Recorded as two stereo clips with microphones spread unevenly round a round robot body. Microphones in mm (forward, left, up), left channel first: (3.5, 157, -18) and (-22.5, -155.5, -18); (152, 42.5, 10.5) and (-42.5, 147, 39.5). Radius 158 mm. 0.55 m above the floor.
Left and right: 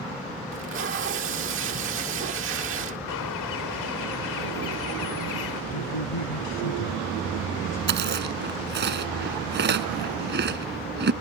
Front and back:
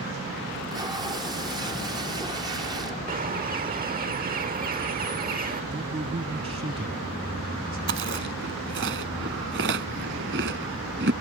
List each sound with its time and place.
0.5 s tape being pulled: 130° right
3.1 s a bird: 105° left
5.7 s a man speaking: 90° left
7.9 s chewing: 155° right